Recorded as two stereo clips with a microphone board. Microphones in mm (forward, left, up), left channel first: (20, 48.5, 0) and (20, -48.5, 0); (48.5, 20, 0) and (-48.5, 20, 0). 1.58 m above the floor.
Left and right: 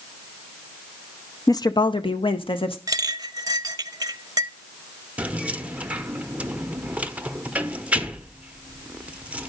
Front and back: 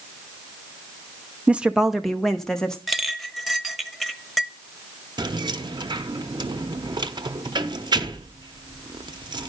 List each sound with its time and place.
1.5 s a woman speaking: 110° left, 0.5 m; by 2.8 s 80° left, 1.2 m
2.9 s a clink: 90° right, 0.7 m
5.2 s keys jangling: 160° right, 0.7 m